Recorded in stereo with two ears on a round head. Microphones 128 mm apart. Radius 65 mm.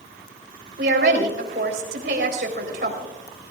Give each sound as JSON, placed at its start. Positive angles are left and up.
{"t": 0.8, "sound": "a woman speaking", "side_deg": -75, "distance_m": 4.0}